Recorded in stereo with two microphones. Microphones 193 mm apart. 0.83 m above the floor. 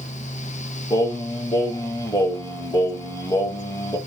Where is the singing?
20° left (ahead or behind), 1.0 m.